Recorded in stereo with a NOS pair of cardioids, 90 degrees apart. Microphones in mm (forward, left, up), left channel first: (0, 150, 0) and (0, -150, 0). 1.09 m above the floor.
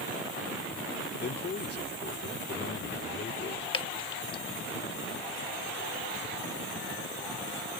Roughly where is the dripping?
Ahead.